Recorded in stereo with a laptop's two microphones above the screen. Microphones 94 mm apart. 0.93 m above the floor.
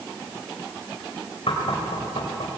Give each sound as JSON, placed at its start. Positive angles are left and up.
{"t": 1.5, "sound": "knocking", "side_deg": 80, "distance_m": 4.0}